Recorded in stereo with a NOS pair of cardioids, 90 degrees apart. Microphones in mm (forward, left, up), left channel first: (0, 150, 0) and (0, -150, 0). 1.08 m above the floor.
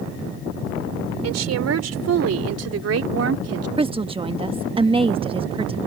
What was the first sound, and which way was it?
A woman speaking, 60° right.